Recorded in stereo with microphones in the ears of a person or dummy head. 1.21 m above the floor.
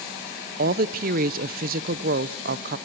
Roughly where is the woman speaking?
Right.